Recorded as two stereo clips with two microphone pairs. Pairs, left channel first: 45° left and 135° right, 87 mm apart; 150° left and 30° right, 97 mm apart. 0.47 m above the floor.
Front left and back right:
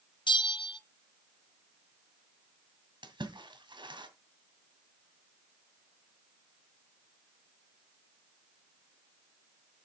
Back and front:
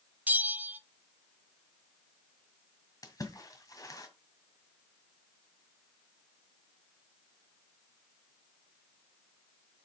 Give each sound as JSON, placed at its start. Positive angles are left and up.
{"t": 0.3, "sound": "a bell", "azimuth_deg": 45, "distance_m": 0.6}
{"t": 3.0, "sound": "a splash", "azimuth_deg": -160, "distance_m": 2.0}